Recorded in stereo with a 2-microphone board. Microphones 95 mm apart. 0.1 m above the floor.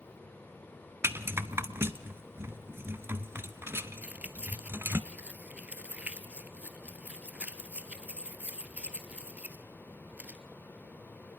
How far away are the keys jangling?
About 1.3 m.